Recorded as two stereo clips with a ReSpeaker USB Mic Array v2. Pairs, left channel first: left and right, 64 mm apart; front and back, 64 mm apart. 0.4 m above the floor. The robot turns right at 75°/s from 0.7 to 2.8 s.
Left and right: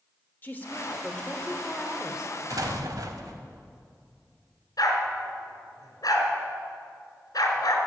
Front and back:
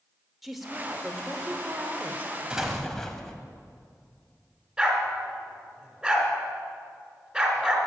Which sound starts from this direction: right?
An explosion, at 2.5 s.